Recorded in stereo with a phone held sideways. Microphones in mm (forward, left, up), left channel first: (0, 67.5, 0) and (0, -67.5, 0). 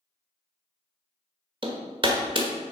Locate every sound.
1.6 s hammering: 40° right (ahead or behind), 1.4 m